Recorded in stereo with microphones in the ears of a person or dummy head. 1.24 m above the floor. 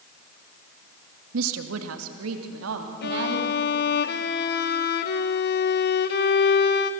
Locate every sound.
1.3 s a woman speaking: 80° right, 1.4 m; by 3.5 s 70° right (ahead or behind), 2.5 m
3.0 s a violin: 45° left (ahead or behind), 1.1 m